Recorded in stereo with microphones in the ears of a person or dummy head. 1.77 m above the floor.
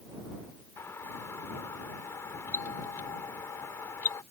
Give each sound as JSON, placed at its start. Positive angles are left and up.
{"t": 0.8, "sound": "a doorbell", "side_deg": 15}